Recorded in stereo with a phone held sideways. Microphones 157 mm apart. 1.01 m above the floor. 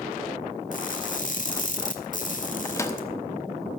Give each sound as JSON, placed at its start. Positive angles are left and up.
{"t": 0.7, "sound": "crushing", "side_deg": 55, "distance_m": 1.3}
{"t": 2.6, "sound": "a microwave", "side_deg": 20, "distance_m": 0.9}